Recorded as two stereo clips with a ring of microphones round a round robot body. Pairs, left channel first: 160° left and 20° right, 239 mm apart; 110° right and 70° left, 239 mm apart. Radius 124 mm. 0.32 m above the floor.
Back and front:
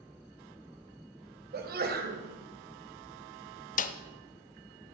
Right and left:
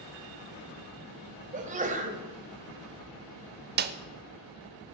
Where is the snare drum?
105° left, 0.6 m.